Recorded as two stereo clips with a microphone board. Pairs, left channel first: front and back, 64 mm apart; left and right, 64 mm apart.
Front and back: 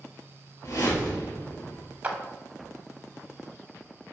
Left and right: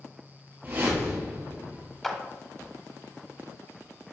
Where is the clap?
170° left, 0.8 m.